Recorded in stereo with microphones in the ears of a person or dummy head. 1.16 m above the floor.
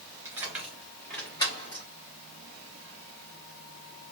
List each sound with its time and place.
0.2 s keys jangling: 10° right (ahead or behind), 1.8 m; by 1.9 s 40° left (ahead or behind), 1.5 m